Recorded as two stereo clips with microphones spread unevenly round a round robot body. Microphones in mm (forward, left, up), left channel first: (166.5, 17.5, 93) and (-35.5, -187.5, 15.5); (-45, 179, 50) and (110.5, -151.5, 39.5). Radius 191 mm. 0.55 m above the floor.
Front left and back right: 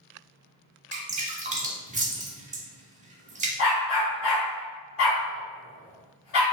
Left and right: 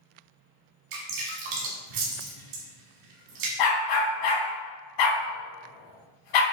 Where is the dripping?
65° right, 1.2 m.